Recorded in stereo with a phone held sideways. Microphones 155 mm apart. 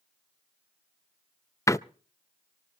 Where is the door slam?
20° left (ahead or behind), 0.5 m.